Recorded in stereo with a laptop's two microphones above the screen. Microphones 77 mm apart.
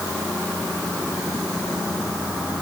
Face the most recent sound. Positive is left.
No sound to turn to.